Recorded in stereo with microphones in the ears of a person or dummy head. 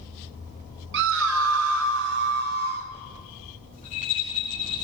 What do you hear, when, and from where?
0.9 s a scream: 65° right (ahead or behind), 1.1 m; by 2.9 s 45° right (ahead or behind), 3 m
3.7 s a rattle: 40° left (ahead or behind), 8 m